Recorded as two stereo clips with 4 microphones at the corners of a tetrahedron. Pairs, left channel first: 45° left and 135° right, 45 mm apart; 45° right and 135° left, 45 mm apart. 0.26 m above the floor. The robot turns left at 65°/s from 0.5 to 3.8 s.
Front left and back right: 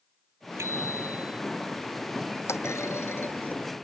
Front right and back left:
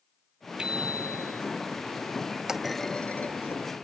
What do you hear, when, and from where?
0.6 s a bicycle bell: 155° right; by 1.4 s 155° left
2.5 s a clunk: 55° left; by 3.6 s 20° right